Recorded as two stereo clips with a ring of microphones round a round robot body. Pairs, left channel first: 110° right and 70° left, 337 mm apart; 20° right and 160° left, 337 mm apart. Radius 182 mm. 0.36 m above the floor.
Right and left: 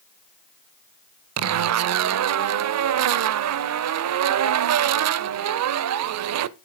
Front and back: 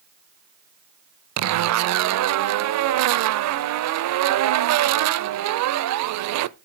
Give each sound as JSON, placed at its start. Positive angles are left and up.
{"t": 1.4, "sound": "a zipper", "azimuth_deg": 115, "distance_m": 0.5}